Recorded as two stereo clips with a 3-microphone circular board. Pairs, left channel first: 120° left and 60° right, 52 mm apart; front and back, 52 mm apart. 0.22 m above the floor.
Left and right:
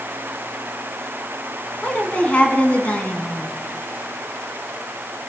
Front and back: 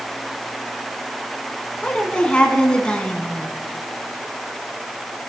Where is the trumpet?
No trumpet in this recording.